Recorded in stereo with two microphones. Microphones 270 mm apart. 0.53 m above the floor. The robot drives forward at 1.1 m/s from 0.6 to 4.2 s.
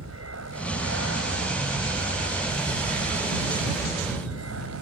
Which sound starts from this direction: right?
An aircraft, at 0.0 s.